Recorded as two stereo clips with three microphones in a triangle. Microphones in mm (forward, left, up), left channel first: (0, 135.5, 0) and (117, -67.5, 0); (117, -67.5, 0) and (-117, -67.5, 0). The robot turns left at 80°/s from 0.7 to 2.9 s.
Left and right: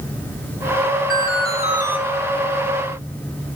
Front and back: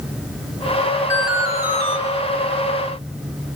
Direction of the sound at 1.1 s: 80° right.